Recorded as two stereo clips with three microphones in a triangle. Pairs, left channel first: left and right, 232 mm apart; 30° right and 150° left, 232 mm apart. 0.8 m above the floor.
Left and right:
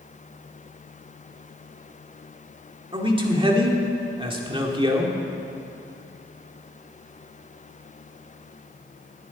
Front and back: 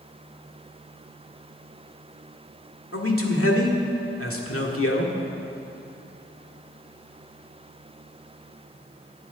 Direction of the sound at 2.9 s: 20° right.